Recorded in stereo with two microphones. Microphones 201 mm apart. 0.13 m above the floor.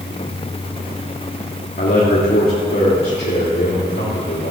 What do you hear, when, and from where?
1.8 s a man speaking: 50° left (ahead or behind), 2.5 m; by 4.5 s 60° left (ahead or behind), 3.5 m